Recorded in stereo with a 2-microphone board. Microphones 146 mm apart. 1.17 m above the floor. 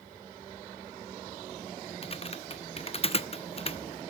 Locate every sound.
2.0 s typing on a keyboard: 40° left (ahead or behind), 0.6 m